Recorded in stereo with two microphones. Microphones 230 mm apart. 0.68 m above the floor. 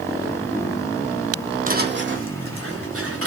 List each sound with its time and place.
1.7 s footsteps: 35° right (ahead or behind), 0.8 m; by 3.3 s 75° right (ahead or behind), 2.5 m